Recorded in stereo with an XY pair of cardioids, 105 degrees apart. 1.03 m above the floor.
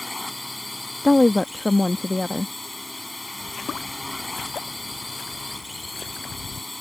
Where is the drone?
15° left.